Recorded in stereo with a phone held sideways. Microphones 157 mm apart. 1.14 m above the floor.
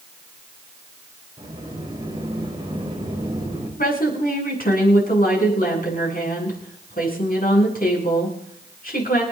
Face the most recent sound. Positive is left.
turn(degrees=70)  # may be behind; listen again after turning